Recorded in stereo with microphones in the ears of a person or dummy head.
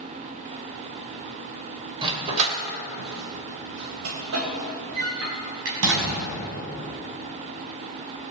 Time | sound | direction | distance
2.0 | a dog barking | 30° right (ahead or behind) | 2.5 m